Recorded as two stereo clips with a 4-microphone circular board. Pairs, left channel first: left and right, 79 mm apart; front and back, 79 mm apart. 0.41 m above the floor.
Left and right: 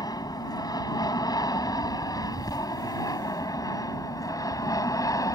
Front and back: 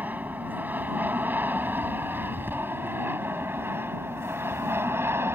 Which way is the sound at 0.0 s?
115° left.